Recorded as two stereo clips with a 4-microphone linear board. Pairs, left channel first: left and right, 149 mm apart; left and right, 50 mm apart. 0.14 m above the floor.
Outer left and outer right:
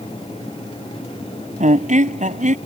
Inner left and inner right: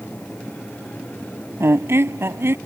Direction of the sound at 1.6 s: 60° right (ahead or behind).